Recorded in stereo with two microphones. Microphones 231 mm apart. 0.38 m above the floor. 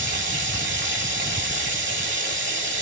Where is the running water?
50° right (ahead or behind), 1.6 m.